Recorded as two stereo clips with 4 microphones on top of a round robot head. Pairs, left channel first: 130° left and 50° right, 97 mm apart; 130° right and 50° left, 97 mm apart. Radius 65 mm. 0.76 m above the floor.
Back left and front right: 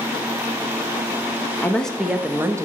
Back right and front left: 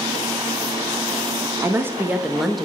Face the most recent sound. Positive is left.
turn(degrees=-45)